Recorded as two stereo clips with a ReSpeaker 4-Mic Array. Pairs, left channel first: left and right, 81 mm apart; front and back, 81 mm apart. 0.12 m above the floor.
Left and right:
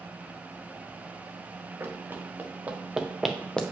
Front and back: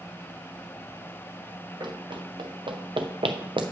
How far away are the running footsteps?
About 1.8 m.